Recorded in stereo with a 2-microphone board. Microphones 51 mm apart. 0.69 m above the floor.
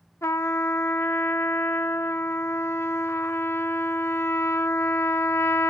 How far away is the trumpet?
About 0.6 m.